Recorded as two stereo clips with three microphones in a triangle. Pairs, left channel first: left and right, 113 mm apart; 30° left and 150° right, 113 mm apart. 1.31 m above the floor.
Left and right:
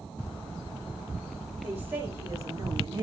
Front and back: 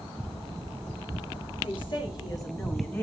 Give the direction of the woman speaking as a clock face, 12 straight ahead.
12 o'clock.